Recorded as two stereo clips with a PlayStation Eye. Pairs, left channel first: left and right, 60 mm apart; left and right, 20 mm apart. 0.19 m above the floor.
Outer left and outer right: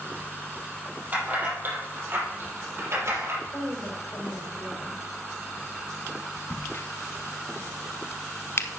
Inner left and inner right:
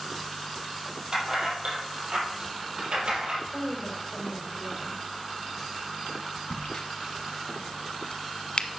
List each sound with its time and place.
1.1 s keys jangling: 30° right (ahead or behind), 5 m; by 3.4 s 45° right (ahead or behind), 4.5 m
3.5 s a woman speaking: 50° left (ahead or behind), 6.5 m
6.5 s a crack: 45° left (ahead or behind), 0.9 m